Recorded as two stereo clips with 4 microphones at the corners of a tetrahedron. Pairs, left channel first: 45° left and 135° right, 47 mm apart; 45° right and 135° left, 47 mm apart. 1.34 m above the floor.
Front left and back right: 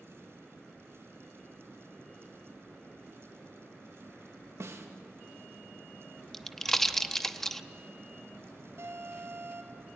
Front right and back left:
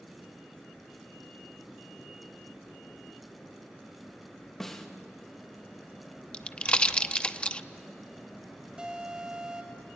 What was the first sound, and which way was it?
A snare drum, 125° right.